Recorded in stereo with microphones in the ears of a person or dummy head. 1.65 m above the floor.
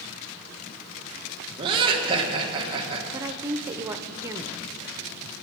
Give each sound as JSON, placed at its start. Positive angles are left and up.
{"t": 1.6, "sound": "laughter", "side_deg": -30, "distance_m": 2.0}
{"t": 3.1, "sound": "a woman speaking", "side_deg": -20, "distance_m": 0.7}